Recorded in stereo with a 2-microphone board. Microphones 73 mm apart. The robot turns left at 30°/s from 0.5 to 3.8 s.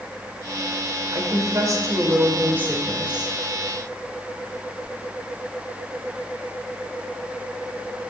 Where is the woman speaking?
105° right, 1.7 m; by 3.3 s 175° right, 1.7 m.